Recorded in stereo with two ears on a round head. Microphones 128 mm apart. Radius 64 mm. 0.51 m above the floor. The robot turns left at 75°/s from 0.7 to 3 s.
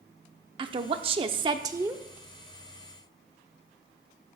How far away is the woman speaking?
About 0.8 m.